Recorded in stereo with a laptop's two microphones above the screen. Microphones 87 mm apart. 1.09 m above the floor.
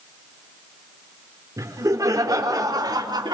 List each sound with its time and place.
1.6 s laughter: 35° right (ahead or behind), 3.5 m; by 3.4 s 50° right (ahead or behind), 2.5 m